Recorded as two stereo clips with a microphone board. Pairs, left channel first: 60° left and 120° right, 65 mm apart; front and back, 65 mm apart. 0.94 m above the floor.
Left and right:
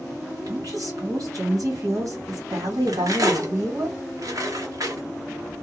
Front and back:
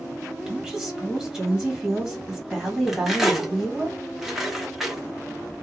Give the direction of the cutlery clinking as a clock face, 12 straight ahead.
3 o'clock.